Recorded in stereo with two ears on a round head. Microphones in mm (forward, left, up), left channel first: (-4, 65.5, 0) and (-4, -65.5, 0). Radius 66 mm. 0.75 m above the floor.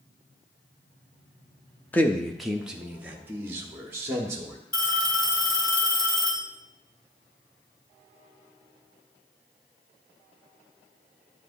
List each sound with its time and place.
1.9 s a man speaking: 10° left (ahead or behind), 0.5 m; by 4.6 s 20° right (ahead or behind), 1.6 m
4.7 s a phone ringing: 30° left (ahead or behind), 1.4 m